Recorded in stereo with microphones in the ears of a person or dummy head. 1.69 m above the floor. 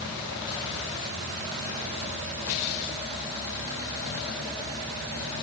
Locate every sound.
Only background noise.